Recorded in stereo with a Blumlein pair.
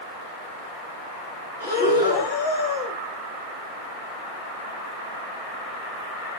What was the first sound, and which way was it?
Breathing, 65° left.